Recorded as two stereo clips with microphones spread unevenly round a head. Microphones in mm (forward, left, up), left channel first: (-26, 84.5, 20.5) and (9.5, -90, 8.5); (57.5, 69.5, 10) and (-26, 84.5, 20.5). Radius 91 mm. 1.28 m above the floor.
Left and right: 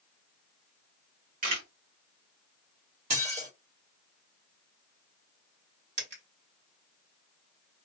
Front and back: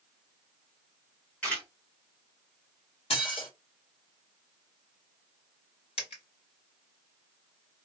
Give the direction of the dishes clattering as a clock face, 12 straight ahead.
1 o'clock.